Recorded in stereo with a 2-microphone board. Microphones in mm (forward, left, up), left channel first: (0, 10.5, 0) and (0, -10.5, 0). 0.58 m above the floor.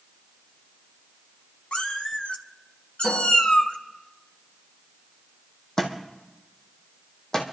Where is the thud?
30° left (ahead or behind), 2 m.